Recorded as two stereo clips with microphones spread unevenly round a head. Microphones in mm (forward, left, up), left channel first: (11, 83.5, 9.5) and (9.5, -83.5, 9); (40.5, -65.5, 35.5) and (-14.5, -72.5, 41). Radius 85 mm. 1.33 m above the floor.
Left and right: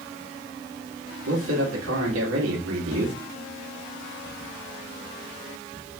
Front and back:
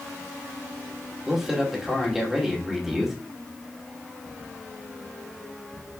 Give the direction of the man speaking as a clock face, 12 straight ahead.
3 o'clock.